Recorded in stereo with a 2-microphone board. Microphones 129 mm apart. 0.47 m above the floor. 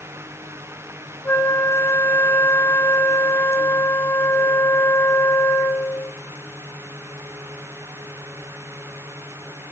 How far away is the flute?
About 0.8 m.